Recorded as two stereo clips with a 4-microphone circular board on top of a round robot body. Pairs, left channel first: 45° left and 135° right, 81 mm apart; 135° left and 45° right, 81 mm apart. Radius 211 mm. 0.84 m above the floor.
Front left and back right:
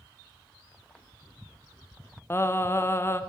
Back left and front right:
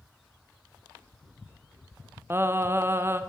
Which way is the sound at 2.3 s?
Straight ahead.